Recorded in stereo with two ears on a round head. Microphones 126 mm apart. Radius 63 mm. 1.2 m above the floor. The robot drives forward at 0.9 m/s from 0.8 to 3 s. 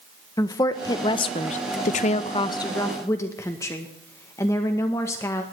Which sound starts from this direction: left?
A woman speaking, at 0.4 s.